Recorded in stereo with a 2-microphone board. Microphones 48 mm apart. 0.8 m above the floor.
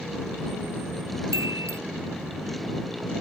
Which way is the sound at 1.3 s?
85° right.